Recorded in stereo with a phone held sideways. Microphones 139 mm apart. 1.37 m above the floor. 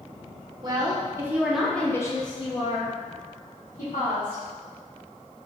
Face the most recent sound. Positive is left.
turn(degrees=80)